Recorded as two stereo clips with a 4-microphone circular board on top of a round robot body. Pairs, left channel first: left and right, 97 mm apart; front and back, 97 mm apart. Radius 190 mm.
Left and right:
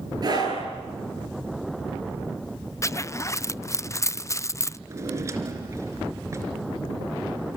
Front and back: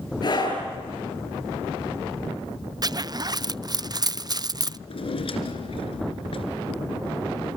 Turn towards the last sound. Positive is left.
turn(degrees=-30)